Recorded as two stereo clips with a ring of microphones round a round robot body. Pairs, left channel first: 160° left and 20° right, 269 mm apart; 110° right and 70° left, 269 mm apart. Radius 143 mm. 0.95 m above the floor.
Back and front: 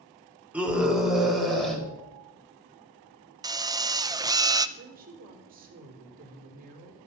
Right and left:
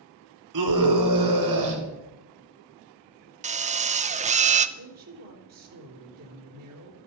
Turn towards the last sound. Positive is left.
turn(degrees=35)